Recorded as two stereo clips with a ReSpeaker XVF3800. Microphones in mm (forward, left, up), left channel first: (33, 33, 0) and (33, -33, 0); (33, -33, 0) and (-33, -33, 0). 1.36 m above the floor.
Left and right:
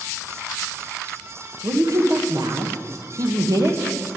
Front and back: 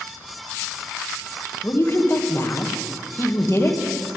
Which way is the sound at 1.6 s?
55° right.